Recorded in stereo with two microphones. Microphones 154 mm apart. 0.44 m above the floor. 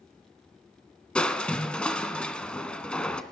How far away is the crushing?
About 0.7 m.